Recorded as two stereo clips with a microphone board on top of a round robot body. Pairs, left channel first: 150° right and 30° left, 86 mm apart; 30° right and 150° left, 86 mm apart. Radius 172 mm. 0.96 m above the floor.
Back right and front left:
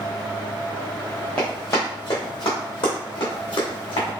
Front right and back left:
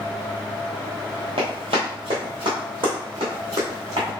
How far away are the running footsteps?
About 1.0 m.